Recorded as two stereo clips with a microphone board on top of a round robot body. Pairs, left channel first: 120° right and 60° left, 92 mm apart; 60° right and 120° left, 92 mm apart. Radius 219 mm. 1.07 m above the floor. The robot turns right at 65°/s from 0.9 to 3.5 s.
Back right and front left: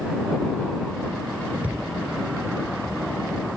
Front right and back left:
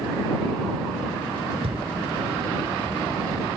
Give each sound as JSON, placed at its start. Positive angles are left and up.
{"t": 1.6, "sound": "a thud", "azimuth_deg": 135}